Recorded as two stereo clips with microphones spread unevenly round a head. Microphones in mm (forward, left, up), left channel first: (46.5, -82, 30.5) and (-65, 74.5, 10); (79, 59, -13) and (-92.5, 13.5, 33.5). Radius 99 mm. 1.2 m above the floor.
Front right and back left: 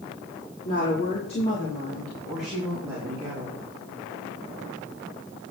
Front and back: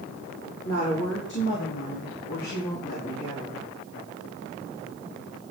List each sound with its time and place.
0.7 s a woman speaking: 5° right, 3 m; by 3.6 s 65° left, 3.5 m